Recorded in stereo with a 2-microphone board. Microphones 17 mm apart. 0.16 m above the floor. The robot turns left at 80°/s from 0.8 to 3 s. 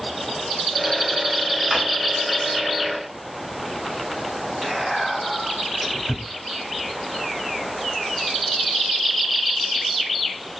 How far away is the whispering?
About 1.7 m.